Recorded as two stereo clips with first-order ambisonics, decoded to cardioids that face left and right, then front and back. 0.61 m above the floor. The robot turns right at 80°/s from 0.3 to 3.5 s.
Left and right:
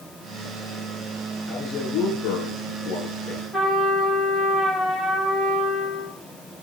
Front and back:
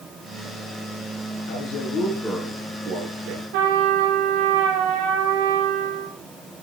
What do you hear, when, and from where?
1.5 s a man speaking: 15° left, 10 m; by 3.4 s 175° left, 10 m
3.5 s a trumpet: straight behind, 6.5 m